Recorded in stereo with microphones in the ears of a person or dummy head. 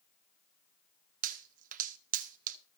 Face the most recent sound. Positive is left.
turn(degrees=-40)  # may be behind; listen again after turning